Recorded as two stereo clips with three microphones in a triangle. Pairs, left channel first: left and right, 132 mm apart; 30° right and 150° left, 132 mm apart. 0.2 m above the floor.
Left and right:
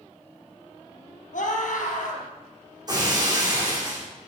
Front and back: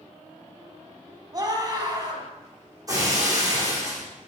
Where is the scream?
90° left, 4.5 m.